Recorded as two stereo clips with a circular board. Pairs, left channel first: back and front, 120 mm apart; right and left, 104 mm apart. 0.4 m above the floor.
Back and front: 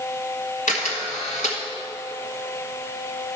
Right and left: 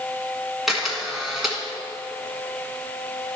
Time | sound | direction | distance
0.7 | a camera shutter | straight behind | 1.5 m